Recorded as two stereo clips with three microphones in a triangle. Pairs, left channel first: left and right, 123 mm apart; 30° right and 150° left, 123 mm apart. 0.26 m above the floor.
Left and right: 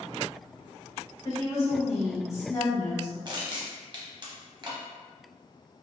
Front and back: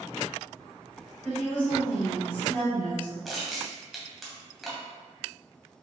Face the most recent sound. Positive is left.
turn(degrees=-120)